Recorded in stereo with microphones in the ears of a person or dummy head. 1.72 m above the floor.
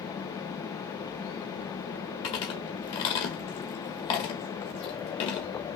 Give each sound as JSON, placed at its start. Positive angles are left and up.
{"t": 2.2, "sound": "chewing", "side_deg": 25, "distance_m": 1.0}